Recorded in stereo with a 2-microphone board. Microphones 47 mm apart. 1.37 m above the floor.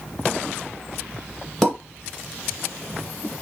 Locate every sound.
1.6 s a pop: 5° left (ahead or behind), 1.9 m